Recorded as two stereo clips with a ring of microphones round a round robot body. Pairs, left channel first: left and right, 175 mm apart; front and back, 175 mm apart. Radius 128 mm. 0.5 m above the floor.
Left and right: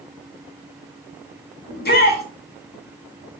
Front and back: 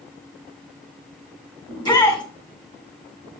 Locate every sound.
1.7 s a shout: 65° left, 5 m